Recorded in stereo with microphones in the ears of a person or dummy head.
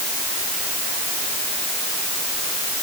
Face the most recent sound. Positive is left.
No sound to turn to.